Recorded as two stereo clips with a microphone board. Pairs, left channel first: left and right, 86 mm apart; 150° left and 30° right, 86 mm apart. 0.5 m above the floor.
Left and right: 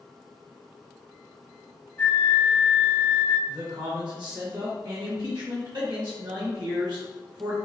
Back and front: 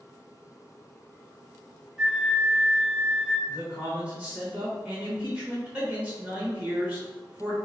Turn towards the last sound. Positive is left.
turn(degrees=-100)